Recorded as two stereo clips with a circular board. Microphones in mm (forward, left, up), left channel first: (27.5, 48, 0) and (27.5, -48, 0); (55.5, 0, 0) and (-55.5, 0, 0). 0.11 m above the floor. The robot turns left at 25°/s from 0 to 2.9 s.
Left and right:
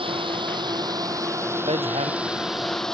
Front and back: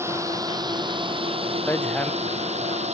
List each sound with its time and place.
0.0 s a drone: 115° right; by 2.9 s 175° left
1.7 s hammering: 70° right; by 2.1 s 80° right